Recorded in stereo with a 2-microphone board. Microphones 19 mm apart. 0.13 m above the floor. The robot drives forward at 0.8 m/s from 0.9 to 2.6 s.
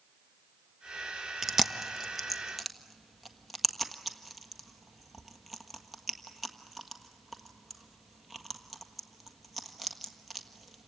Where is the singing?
I don't hear singing.